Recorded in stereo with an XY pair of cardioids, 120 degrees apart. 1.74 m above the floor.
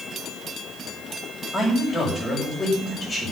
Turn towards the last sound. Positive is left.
turn(degrees=20)